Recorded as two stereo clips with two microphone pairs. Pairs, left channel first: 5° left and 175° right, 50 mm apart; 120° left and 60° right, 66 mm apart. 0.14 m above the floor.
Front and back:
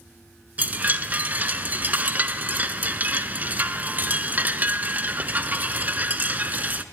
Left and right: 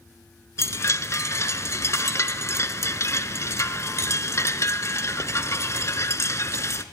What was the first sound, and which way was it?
A chime, 140° left.